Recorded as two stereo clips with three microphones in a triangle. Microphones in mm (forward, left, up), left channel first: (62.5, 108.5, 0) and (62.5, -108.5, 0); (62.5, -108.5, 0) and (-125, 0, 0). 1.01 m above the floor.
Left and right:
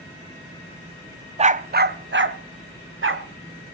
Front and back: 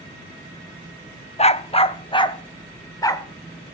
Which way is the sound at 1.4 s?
60° right.